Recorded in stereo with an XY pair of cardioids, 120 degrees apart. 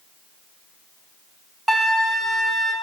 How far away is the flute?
About 0.8 m.